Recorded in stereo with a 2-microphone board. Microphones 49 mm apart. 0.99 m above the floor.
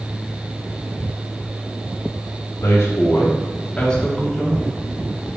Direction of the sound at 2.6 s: 65° left (ahead or behind).